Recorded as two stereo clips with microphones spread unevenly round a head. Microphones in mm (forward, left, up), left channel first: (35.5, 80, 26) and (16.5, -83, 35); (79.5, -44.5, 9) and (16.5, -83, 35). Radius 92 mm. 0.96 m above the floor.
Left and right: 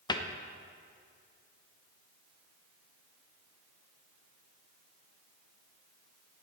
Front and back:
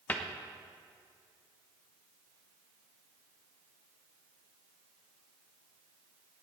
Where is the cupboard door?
40° left, 0.9 m.